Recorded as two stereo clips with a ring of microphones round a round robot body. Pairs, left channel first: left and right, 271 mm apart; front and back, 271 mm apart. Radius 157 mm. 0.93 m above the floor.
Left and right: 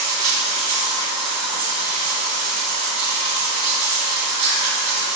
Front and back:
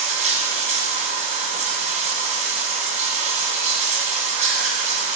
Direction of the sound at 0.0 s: 115° right.